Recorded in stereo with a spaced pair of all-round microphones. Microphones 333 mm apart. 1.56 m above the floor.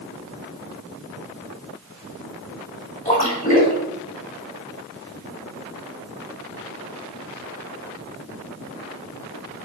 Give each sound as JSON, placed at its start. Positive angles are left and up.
{"t": 3.0, "sound": "a splash", "side_deg": 25, "distance_m": 3.0}